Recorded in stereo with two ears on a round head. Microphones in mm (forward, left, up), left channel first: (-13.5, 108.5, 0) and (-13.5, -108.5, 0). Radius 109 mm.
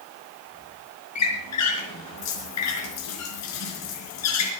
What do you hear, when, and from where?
1.1 s a squeak: 80° left, 4 m